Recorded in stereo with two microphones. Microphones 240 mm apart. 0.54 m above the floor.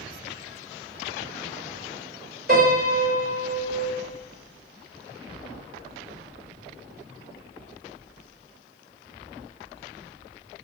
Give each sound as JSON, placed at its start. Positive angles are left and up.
{"t": 2.5, "sound": "a piano", "side_deg": -40, "distance_m": 1.3}